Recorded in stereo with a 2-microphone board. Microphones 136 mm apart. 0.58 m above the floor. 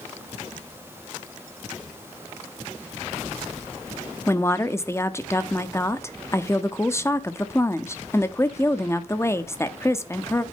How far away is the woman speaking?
About 0.7 m.